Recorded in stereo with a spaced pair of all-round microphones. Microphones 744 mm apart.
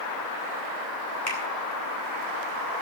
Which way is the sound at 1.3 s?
20° left (ahead or behind).